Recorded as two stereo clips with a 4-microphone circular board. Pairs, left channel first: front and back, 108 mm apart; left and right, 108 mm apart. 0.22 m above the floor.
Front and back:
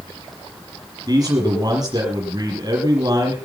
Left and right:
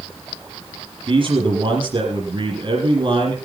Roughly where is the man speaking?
Behind right.